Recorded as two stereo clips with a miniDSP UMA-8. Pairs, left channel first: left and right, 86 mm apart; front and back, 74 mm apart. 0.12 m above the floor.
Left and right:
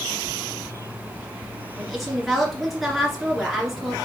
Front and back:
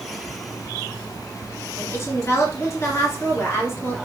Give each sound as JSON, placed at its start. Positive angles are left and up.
{"t": 1.8, "sound": "a woman speaking", "azimuth_deg": 0, "distance_m": 2.0}